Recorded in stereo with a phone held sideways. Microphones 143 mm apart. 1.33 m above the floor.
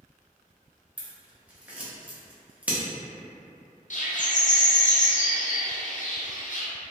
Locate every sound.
1.0 s scissors: 10° right (ahead or behind), 0.7 m
3.9 s a bird: 60° left (ahead or behind), 0.6 m